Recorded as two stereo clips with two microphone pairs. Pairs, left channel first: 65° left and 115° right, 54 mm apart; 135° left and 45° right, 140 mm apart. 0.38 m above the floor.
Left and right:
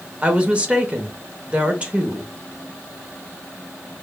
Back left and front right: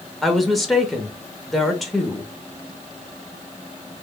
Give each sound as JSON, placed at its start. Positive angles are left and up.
{"t": 0.2, "sound": "a woman speaking", "azimuth_deg": -140, "distance_m": 0.8}